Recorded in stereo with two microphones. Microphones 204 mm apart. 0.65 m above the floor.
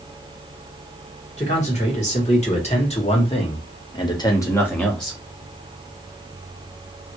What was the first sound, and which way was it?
A man speaking, 35° left (ahead or behind).